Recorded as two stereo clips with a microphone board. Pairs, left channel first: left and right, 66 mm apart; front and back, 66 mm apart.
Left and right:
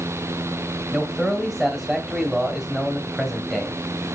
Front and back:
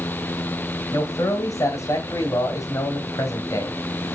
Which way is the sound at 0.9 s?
15° right.